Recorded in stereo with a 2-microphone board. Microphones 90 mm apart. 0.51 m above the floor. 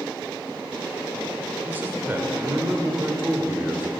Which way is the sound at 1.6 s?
25° right (ahead or behind).